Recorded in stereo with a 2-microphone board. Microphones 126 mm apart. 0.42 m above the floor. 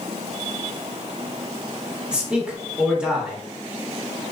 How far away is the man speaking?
About 1.1 m.